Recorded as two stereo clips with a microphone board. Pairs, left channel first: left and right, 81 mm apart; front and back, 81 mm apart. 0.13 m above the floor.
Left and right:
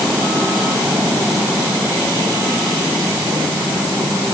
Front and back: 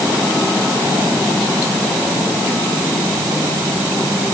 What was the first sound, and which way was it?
Only background noise.